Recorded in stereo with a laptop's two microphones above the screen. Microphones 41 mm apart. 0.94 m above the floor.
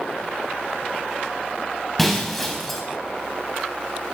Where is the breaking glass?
5° left (ahead or behind), 3.5 m.